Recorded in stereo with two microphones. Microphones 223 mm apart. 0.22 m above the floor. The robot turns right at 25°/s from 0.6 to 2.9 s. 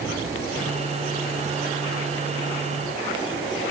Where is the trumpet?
I don't hear a trumpet.